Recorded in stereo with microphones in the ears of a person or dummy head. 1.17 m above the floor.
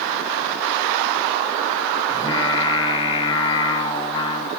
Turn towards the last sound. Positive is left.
turn(degrees=25)  # may be behind; listen again after turning